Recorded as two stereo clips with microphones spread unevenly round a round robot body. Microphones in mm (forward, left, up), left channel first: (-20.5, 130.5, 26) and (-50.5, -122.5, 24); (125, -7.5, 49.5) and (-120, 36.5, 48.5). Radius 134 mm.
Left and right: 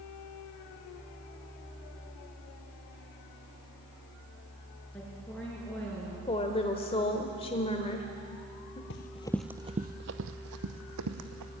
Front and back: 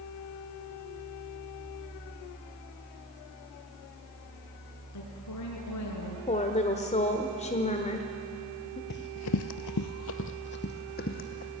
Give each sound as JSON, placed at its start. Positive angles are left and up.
{"t": 4.9, "sound": "a woman speaking", "azimuth_deg": 0, "distance_m": 5.5}
{"t": 6.3, "sound": "a woman speaking", "azimuth_deg": 30, "distance_m": 1.3}
{"t": 8.9, "sound": "running footsteps", "azimuth_deg": 35, "distance_m": 0.7}